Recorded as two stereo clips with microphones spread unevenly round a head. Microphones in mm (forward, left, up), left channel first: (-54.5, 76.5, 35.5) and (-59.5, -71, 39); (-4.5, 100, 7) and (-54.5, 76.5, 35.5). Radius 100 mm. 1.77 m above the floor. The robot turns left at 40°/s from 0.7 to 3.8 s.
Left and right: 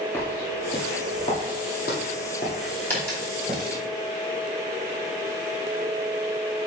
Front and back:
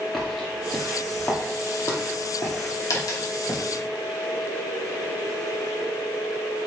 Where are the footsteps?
150° left, 2 m; by 3.6 s 10° right, 3.5 m.